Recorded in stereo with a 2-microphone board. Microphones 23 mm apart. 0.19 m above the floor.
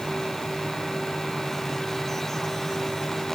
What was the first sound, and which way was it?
Only background noise.